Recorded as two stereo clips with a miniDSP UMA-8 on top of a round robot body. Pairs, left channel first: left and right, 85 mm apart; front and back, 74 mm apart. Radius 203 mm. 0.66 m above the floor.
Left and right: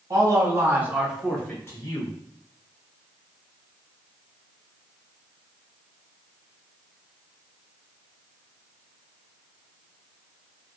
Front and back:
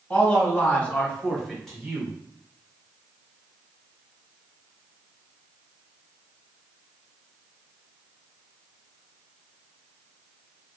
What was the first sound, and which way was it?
A man speaking, 60° right.